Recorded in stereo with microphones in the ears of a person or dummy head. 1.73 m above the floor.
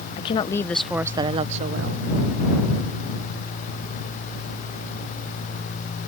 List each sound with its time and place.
0.2 s a woman speaking: 30° left (ahead or behind); by 2.1 s 60° right (ahead or behind)